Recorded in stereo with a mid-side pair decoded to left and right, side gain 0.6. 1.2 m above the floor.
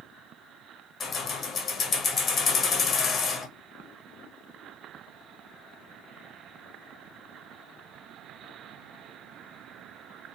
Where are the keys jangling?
35° left, 0.8 m.